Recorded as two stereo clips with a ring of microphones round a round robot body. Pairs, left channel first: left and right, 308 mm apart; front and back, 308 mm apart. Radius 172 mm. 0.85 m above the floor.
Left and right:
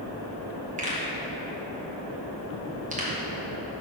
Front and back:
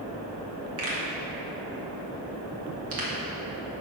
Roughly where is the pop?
Behind right.